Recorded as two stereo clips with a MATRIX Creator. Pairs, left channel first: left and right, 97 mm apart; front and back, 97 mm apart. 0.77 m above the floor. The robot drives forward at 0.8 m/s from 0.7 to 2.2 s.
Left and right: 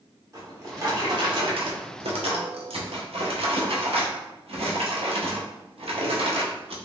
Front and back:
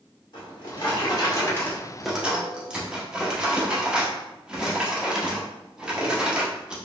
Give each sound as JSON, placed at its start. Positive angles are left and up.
{"t": 0.3, "sound": "a drawer", "azimuth_deg": -35, "distance_m": 1.3}